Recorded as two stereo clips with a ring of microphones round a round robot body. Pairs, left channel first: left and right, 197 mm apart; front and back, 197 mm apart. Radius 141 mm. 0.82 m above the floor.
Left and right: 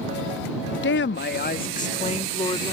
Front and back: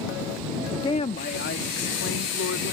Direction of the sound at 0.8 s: 75° left.